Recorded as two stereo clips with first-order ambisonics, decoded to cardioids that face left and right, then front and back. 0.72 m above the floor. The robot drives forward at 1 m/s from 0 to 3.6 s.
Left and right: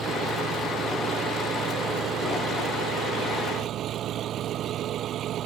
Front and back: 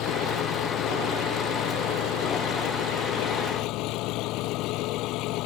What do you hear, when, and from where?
0.0 s an engine running: 30° right; by 5.5 s 35° right